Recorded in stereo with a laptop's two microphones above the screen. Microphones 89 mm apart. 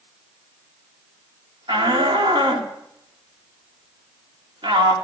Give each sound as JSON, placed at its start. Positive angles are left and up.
{"t": 1.7, "sound": "a shout", "side_deg": -65, "distance_m": 2.5}